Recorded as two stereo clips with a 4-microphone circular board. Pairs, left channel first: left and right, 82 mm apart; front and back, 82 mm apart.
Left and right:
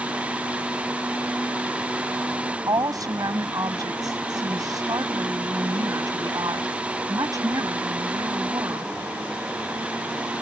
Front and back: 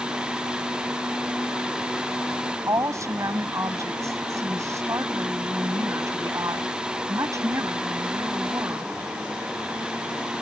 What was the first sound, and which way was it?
A woman speaking, 130° right.